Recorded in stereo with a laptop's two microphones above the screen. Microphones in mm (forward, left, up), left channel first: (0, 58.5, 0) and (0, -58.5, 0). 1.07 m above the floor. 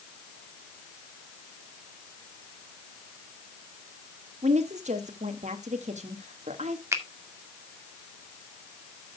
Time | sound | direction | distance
4.4 | a woman speaking | 80° right | 1.6 m
6.9 | a finger snap | 25° right (ahead or behind) | 1.9 m